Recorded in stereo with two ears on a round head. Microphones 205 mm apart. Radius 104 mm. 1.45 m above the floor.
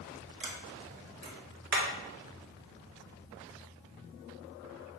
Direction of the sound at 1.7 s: 45° right (ahead or behind).